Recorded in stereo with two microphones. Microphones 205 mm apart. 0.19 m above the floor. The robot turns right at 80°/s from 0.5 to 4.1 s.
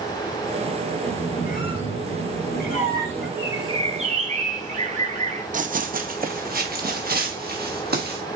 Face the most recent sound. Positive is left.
turn(degrees=-50)  # may be behind; listen again after turning